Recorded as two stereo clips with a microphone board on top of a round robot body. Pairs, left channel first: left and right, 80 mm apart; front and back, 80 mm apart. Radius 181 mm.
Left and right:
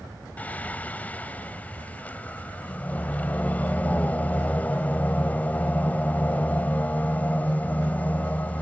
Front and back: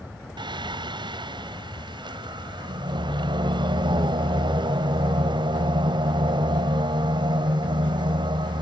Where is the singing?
160° left.